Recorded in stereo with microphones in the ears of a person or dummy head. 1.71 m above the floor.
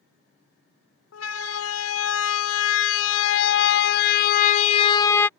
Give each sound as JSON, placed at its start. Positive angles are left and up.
{"t": 1.1, "sound": "a siren", "side_deg": 85}